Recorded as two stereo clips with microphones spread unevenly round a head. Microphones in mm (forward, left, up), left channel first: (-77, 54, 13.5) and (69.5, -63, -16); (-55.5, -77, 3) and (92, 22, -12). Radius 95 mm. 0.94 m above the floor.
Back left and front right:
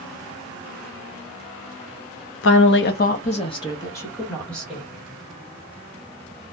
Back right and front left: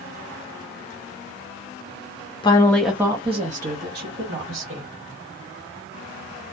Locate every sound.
2.4 s a woman speaking: 150° left, 0.6 m; by 4.8 s 50° left, 1.4 m